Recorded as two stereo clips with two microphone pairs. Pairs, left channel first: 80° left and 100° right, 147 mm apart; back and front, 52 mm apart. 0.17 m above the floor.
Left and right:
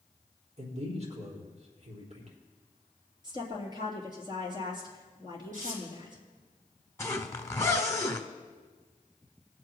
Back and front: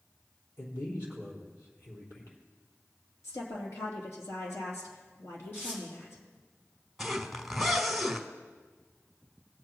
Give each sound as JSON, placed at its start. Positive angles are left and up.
{"t": 0.6, "sound": "a man speaking", "azimuth_deg": -140, "distance_m": 3.5}
{"t": 3.2, "sound": "a woman speaking", "azimuth_deg": -160, "distance_m": 3.5}
{"t": 5.5, "sound": "tearing paper", "azimuth_deg": -130, "distance_m": 5.5}
{"t": 7.0, "sound": "a zipper", "azimuth_deg": 90, "distance_m": 1.3}